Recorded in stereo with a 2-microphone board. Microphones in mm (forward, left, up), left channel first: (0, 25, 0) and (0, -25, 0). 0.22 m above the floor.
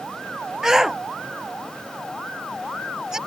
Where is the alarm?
No alarm in this recording.